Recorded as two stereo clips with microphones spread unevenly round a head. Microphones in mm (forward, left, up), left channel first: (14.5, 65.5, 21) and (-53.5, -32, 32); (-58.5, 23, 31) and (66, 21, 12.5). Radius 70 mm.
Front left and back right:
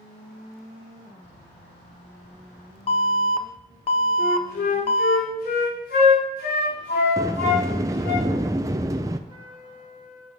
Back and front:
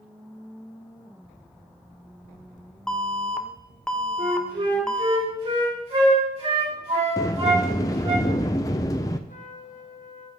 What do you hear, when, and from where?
2.9 s an alarm: 95° left, 0.9 m
4.2 s a flute: 45° left, 5.5 m
7.2 s a sliding door: 160° right, 0.5 m
9.3 s a trumpet: straight behind, 2 m